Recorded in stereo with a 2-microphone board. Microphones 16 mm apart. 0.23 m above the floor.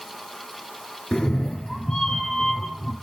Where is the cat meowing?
70° left (ahead or behind), 0.9 m; by 2.9 s 45° left (ahead or behind), 2.0 m.